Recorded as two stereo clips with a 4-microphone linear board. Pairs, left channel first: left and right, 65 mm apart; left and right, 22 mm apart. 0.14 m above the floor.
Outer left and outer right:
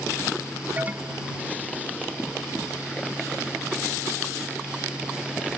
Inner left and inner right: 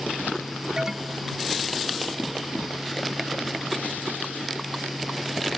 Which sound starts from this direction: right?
An alarm, at 0.8 s.